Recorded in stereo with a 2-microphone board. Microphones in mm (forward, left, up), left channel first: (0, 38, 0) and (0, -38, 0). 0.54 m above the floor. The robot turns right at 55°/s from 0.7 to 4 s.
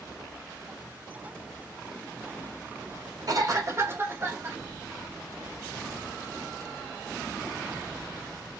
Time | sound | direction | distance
3.3 | a cough | 80° right | 2.0 m